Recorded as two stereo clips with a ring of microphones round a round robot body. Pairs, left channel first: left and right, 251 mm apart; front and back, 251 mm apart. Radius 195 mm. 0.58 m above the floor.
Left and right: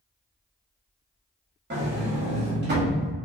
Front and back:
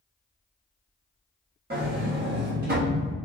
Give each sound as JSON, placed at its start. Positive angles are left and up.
{"t": 1.7, "sound": "a sliding door", "azimuth_deg": -130, "distance_m": 0.9}